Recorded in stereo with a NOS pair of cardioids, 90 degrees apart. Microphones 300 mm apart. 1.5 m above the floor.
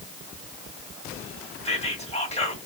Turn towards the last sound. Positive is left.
turn(degrees=20)